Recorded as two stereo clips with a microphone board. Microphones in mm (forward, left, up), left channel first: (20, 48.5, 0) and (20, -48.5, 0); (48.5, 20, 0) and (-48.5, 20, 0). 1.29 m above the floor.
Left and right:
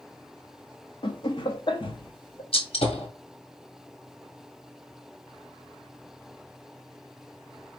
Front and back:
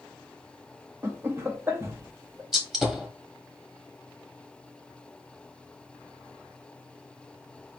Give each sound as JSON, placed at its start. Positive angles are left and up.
{"t": 1.0, "sound": "laughter", "azimuth_deg": 115, "distance_m": 0.8}
{"t": 2.5, "sound": "a gunshot", "azimuth_deg": 95, "distance_m": 1.4}